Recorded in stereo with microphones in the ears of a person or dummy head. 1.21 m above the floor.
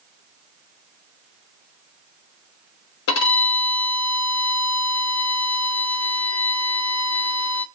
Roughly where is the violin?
Left.